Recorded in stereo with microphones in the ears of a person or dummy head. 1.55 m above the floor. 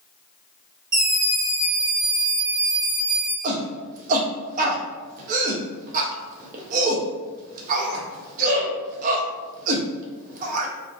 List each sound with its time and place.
0.9 s a scream: 25° right (ahead or behind), 1.1 m; by 3.3 s 75° right (ahead or behind), 1.4 m
3.4 s a shout: 45° right (ahead or behind), 0.6 m